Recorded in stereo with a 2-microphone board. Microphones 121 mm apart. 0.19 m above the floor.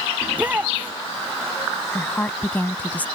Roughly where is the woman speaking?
Centre.